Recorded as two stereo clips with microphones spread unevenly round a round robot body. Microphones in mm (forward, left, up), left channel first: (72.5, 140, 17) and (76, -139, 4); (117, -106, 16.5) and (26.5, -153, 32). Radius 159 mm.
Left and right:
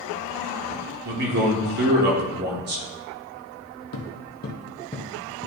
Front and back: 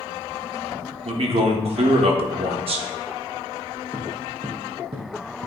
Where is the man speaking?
140° right, 1.2 m.